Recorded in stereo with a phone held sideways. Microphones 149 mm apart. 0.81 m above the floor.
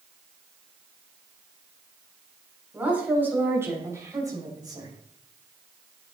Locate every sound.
2.7 s a woman speaking: 10° right (ahead or behind), 5 m; by 4.9 s 30° right (ahead or behind), 4 m